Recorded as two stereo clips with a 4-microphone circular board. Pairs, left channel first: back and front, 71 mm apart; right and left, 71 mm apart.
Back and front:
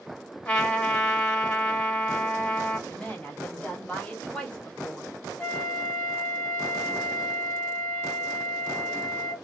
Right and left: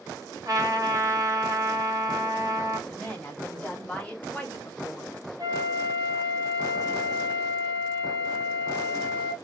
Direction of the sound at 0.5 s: 110° left.